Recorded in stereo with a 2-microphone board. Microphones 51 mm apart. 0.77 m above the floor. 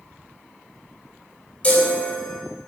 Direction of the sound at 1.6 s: 30° left (ahead or behind).